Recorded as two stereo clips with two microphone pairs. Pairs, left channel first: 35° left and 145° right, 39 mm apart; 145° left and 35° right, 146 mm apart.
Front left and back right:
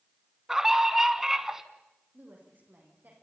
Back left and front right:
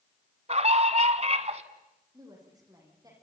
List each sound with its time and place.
0.5 s a scream: 65° right, 1.7 m
2.1 s a woman speaking: 100° right, 8.5 m